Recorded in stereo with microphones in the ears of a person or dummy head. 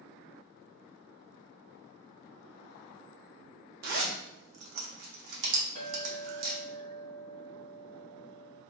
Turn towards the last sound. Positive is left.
turn(degrees=-35)  # may be behind; listen again after turning